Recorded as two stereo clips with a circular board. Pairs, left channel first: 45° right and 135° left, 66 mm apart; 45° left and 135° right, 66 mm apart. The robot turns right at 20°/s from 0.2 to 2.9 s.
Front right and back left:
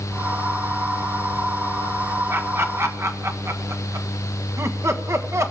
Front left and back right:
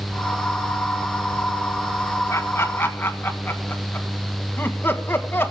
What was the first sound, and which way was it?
Laughter, 90° left.